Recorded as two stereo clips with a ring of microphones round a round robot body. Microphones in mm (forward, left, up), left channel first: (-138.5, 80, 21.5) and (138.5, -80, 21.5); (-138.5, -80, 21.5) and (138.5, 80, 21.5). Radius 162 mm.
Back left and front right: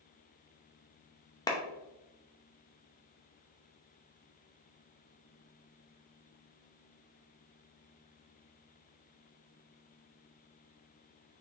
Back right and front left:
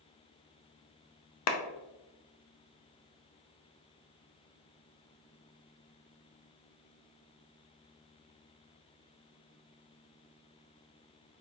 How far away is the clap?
About 0.6 m.